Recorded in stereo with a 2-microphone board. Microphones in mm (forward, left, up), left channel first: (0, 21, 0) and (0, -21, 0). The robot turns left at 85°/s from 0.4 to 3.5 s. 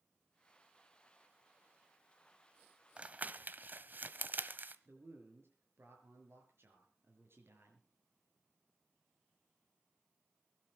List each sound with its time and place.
3.0 s crumpling: 25° right (ahead or behind), 1.0 m; by 4.8 s 45° right (ahead or behind), 1.0 m
4.8 s a man speaking: 65° right (ahead or behind), 5.5 m